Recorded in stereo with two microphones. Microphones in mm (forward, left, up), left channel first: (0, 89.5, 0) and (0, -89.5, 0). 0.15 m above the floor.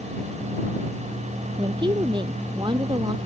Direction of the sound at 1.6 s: 25° right (ahead or behind).